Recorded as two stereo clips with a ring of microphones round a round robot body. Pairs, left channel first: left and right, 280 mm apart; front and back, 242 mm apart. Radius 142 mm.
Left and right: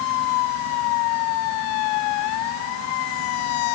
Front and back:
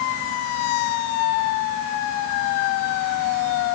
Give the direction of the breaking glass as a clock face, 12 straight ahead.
No breaking glass in this recording.